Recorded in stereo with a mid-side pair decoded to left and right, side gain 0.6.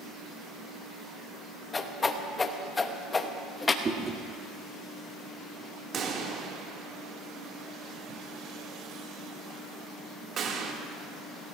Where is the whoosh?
25° left, 1.4 m.